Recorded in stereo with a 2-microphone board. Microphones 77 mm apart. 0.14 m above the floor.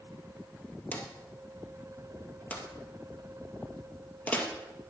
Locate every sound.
0.9 s a drawer: 20° left (ahead or behind), 1.9 m